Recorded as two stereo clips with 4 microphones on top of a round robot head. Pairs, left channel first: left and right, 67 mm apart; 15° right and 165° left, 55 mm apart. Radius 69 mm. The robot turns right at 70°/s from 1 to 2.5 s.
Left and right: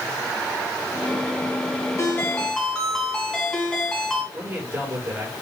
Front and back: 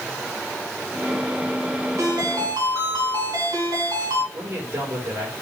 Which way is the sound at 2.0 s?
135° left.